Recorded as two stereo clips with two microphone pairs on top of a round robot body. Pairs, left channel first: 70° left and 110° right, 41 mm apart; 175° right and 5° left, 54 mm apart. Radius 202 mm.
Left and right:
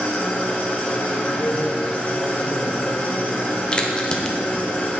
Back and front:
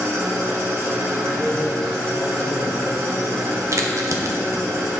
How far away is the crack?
About 1.0 m.